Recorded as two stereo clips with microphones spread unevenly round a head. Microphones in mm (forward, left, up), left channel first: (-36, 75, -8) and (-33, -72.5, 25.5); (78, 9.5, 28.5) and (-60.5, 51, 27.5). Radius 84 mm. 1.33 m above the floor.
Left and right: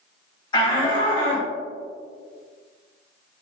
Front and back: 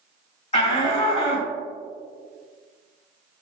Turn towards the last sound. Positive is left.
turn(degrees=30)